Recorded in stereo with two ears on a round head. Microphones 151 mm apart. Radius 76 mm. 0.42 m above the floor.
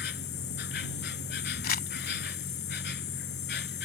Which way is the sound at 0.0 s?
65° left (ahead or behind).